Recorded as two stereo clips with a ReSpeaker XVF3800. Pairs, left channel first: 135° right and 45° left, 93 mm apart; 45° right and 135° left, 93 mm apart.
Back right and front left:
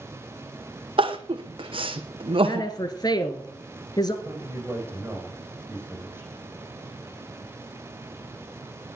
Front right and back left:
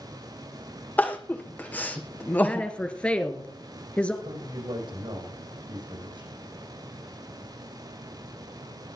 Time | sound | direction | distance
1.0 | crying | 25° left | 1.5 m
2.4 | a woman speaking | 115° right | 1.8 m
4.2 | a man speaking | 115° left | 6.5 m